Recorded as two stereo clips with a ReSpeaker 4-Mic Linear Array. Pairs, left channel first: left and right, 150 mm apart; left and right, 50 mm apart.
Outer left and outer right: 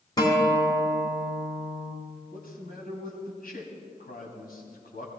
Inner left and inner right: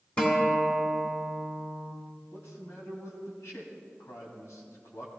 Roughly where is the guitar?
Left.